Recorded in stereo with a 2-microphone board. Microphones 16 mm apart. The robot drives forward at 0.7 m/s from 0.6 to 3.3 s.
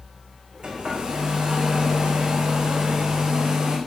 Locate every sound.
0.6 s a hair dryer: 90° right, 5 m; by 3.8 s 65° right (ahead or behind), 5.5 m